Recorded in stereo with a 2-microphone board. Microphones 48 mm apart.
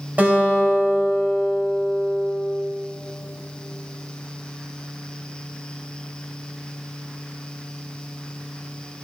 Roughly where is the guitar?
Right.